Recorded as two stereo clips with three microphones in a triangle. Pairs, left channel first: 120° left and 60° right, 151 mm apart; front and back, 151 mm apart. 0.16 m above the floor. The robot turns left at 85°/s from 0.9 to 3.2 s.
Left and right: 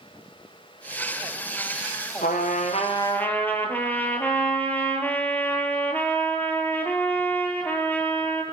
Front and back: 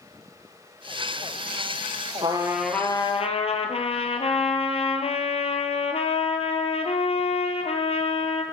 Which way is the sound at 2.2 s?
125° left.